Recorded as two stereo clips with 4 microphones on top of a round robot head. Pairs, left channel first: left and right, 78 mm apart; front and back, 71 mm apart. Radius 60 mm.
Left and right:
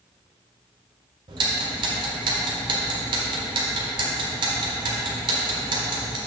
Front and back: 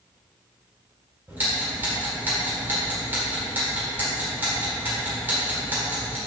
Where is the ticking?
110° right, 1.6 m.